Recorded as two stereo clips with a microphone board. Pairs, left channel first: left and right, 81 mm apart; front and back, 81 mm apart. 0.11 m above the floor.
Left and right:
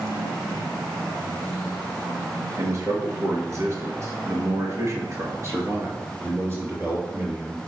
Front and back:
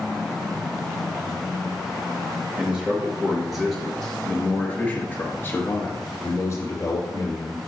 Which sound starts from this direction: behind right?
A man speaking, at 2.6 s.